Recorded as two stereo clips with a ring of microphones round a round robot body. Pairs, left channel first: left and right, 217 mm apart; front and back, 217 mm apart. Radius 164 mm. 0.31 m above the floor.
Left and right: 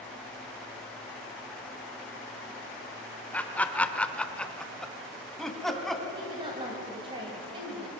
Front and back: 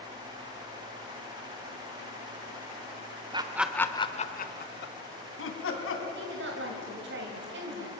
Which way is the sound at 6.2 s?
160° right.